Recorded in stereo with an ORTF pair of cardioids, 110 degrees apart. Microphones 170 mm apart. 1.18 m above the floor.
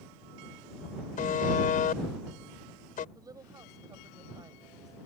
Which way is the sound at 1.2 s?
55° left.